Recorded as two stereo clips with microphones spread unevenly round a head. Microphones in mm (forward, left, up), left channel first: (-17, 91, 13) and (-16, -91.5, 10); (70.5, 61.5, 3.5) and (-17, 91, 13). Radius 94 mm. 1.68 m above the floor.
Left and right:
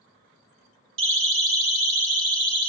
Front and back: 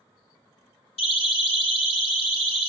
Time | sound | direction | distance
1.0 | a siren | 65° right | 3.5 m